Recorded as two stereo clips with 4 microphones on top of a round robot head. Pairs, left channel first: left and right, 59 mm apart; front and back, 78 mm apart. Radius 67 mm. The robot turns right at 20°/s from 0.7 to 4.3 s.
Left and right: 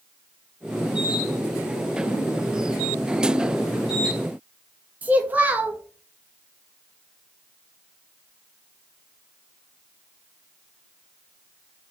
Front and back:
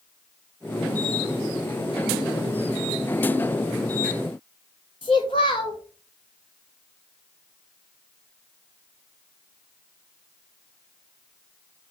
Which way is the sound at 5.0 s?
35° right.